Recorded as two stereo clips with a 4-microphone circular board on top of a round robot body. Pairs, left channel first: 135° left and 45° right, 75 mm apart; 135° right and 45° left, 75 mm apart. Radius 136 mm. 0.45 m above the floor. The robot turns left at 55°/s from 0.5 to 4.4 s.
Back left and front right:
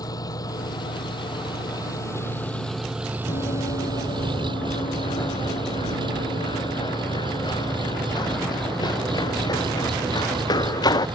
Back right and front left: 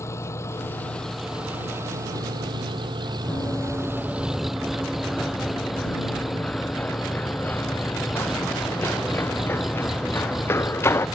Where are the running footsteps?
160° left; by 11.1 s 165° left.